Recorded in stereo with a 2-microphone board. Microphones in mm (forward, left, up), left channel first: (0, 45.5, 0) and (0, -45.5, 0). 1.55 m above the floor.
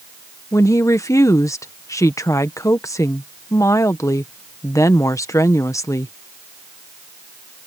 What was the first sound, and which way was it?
A woman speaking, 35° left (ahead or behind).